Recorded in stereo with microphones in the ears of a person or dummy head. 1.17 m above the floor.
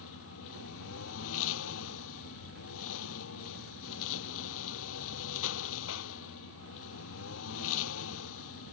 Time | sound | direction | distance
0.0 | a lawn mower | 85° left | ?